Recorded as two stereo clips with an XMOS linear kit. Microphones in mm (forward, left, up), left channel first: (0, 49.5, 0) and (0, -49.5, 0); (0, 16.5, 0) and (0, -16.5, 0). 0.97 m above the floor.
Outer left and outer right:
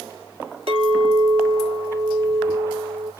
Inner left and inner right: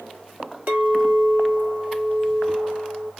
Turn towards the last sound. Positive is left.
turn(degrees=-65)  # may be behind; listen again after turning